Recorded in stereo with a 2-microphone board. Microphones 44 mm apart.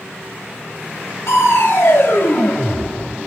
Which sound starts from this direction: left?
Crushing, at 1.3 s.